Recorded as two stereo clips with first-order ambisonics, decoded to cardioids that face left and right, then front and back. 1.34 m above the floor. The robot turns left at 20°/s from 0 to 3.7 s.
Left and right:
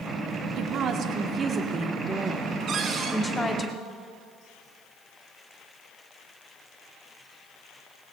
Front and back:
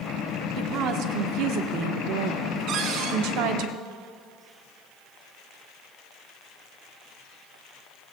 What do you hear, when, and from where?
0.6 s a woman speaking: 135° right, 1.3 m; by 3.7 s 160° left, 1.3 m
2.7 s a cupboard door: 145° right, 1.6 m; by 3.2 s 155° right, 1.6 m